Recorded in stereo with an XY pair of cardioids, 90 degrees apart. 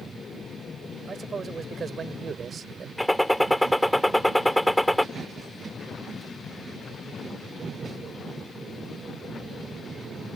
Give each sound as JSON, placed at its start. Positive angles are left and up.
{"t": 1.1, "sound": "a man speaking", "azimuth_deg": -40}
{"t": 3.0, "sound": "a gunshot", "azimuth_deg": 5}